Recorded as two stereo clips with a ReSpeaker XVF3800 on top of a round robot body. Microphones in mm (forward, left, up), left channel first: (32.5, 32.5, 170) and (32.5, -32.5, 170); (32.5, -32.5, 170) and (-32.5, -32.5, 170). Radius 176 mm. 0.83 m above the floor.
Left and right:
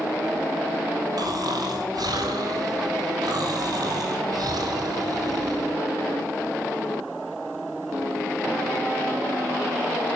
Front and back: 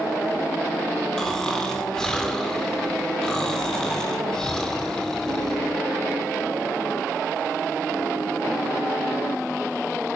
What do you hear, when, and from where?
1.2 s snoring: 80° right, 3.5 m